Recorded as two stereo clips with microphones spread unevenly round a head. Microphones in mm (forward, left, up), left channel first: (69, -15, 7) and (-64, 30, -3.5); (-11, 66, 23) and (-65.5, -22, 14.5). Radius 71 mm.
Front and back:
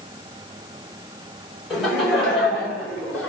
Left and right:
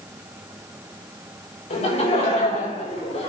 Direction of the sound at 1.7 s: 70° left.